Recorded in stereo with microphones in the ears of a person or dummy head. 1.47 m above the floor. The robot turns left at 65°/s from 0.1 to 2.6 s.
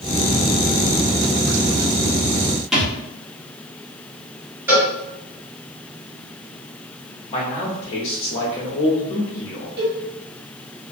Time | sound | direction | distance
2.7 | a thud | 5° right (ahead or behind) | 1.2 m
4.7 | a cowbell | 15° right (ahead or behind) | 1.6 m
7.3 | a man speaking | 25° left (ahead or behind) | 0.8 m
9.8 | a cowbell | 55° right (ahead or behind) | 1.1 m